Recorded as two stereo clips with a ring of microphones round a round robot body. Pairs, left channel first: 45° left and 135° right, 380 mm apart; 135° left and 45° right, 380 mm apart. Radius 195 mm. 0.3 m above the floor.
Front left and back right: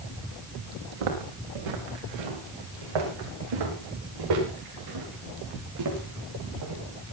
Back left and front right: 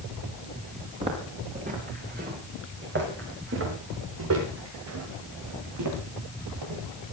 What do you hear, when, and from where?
1.0 s footsteps: 120° right, 7 m; by 6.8 s 85° right, 7.5 m